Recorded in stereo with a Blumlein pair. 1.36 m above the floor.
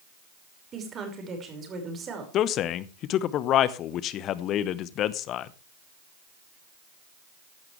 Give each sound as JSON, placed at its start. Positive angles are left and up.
{"t": 0.7, "sound": "a woman speaking", "azimuth_deg": -25, "distance_m": 5.5}
{"t": 2.3, "sound": "a man speaking", "azimuth_deg": 35, "distance_m": 0.9}